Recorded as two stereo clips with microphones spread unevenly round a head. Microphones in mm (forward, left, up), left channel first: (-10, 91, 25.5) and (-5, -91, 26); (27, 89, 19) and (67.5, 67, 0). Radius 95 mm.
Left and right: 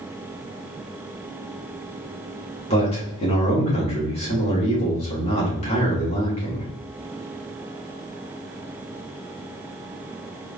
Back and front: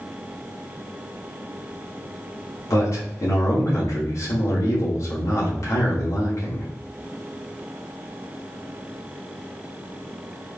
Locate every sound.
2.7 s a man speaking: 150° left, 2.5 m